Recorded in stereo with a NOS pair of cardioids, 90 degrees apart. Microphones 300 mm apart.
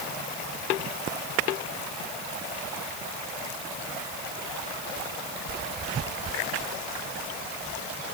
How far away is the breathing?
No breathing in this recording.